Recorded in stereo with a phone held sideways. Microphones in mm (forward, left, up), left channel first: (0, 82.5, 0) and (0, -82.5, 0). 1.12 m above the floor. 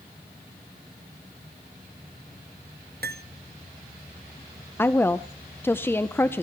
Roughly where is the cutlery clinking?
Right.